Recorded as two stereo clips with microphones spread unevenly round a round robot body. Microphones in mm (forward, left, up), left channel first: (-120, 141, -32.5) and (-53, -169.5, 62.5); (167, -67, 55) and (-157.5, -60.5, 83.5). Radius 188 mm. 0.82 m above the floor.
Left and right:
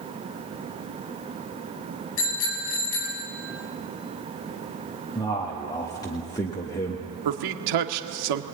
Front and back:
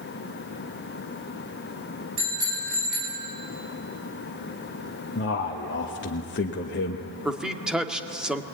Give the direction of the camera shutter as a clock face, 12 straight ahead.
No camera shutter in this recording.